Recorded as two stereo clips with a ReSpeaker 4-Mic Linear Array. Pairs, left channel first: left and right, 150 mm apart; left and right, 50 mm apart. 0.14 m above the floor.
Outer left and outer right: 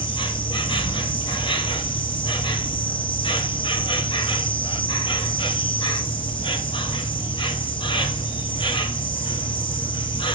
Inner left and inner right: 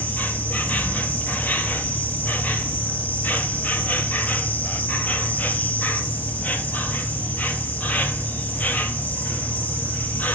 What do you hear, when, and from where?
0.0 s an insect: 35° left (ahead or behind), 1.1 m